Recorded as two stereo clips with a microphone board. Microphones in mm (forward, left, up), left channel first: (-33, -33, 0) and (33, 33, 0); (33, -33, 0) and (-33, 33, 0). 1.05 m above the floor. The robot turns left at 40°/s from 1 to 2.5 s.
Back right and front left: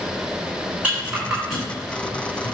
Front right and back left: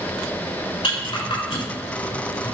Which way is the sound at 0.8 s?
30° right.